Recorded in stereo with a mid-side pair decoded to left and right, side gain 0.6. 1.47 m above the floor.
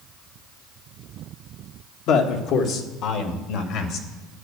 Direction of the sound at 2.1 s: 65° left.